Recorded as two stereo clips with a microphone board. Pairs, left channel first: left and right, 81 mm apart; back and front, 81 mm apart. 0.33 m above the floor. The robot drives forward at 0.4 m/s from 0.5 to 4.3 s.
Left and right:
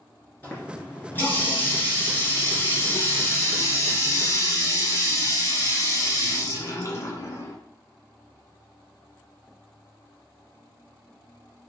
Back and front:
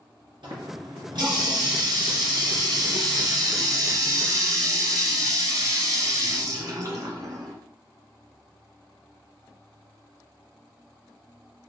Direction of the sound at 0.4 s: 25° left.